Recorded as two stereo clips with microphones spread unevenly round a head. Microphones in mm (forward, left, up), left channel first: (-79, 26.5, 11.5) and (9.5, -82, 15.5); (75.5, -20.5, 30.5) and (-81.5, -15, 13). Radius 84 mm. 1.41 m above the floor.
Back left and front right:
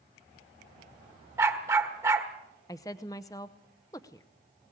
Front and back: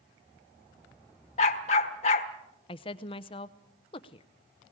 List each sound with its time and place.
1.4 s a dog barking: 15° left, 1.3 m
2.7 s a woman speaking: 55° left, 0.6 m